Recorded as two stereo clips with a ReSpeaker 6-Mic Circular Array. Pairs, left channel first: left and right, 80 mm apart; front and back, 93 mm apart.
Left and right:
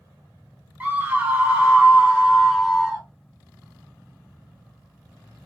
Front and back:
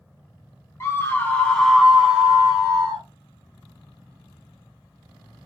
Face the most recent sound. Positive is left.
turn(degrees=-170)